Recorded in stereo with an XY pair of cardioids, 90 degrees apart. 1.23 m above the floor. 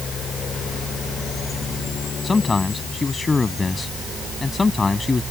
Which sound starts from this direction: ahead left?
A man speaking, at 2.2 s.